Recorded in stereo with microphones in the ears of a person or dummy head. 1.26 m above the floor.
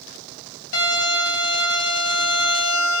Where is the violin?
80° left, 1.9 m.